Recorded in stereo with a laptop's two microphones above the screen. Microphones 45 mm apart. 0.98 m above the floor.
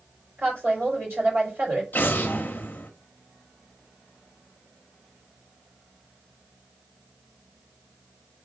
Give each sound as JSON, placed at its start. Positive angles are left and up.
{"t": 0.4, "sound": "a woman speaking", "side_deg": -75, "distance_m": 3.5}
{"t": 1.9, "sound": "an explosion", "side_deg": 45, "distance_m": 0.5}